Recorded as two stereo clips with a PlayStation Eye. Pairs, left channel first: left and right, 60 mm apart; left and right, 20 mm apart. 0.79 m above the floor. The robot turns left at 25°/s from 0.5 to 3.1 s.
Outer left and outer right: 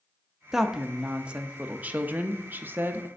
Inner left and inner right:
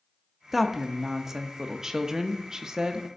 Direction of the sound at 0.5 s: 10° right.